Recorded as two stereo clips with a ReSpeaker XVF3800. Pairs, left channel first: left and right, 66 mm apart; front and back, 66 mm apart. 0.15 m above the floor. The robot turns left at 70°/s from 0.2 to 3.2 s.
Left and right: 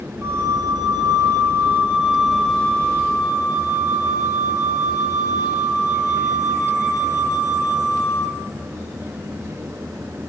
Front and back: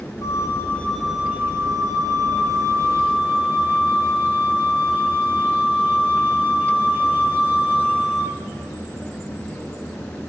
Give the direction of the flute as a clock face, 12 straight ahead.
1 o'clock.